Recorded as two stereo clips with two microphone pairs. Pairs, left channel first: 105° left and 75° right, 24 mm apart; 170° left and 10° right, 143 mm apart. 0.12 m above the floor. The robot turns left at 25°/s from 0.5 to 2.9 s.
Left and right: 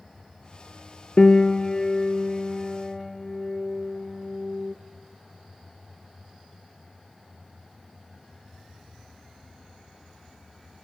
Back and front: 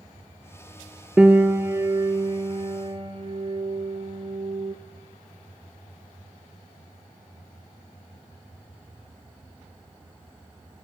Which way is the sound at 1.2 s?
65° left.